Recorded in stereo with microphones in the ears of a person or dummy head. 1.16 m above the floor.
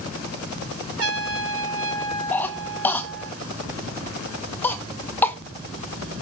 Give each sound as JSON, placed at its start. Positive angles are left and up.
{"t": 1.0, "sound": "a trumpet", "side_deg": -80, "distance_m": 4.5}
{"t": 2.3, "sound": "a cough", "side_deg": 10, "distance_m": 1.3}